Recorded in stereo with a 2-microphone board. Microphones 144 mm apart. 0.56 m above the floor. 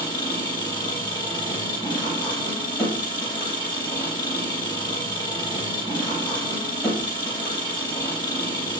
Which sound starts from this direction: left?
An engine running, at 0.0 s.